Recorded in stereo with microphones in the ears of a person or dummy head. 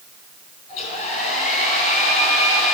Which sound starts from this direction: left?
A hair dryer, at 0.7 s.